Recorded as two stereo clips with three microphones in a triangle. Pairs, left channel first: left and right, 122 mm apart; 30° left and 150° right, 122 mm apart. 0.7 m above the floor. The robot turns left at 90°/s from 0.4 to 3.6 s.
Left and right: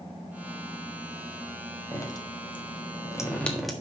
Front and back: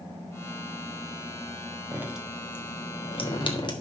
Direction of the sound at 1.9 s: 150° left.